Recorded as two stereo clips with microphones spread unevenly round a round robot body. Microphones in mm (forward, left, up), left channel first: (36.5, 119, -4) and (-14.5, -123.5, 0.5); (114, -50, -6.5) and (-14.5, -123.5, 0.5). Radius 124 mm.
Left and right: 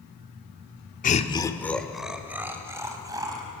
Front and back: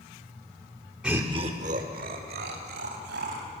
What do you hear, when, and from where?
1.0 s laughter: 125° left, 1.2 m; by 3.5 s 175° right, 4 m